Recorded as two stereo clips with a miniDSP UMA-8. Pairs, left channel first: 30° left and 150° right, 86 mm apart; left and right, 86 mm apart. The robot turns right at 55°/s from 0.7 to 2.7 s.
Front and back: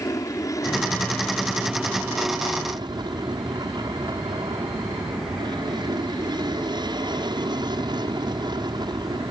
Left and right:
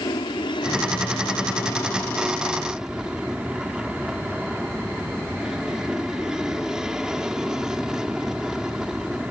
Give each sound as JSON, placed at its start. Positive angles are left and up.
{"t": 0.0, "sound": "an aircraft", "azimuth_deg": 75}